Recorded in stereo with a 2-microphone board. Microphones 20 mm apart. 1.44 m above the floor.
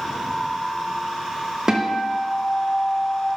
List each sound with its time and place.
1.7 s a guitar: 30° right (ahead or behind), 0.8 m